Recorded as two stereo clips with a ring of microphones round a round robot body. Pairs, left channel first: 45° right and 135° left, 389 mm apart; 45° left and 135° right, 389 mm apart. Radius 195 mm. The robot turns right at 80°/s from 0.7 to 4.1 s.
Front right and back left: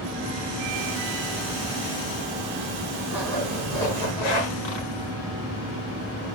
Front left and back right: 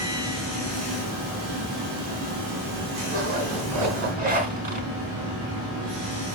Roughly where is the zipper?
Behind right.